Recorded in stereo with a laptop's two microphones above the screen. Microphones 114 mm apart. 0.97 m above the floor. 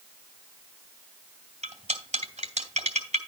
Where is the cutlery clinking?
75° right (ahead or behind), 2 m.